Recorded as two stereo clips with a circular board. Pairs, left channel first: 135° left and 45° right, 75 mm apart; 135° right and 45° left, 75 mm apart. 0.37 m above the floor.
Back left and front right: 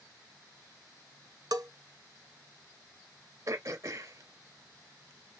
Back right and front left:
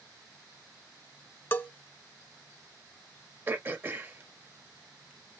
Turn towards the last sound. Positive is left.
turn(degrees=-15)